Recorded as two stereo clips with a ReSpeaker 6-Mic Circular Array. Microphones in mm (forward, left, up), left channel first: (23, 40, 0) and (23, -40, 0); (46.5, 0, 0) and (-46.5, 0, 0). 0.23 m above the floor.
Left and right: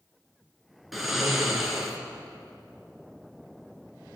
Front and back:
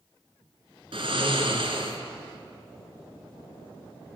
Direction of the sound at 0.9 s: 175° right.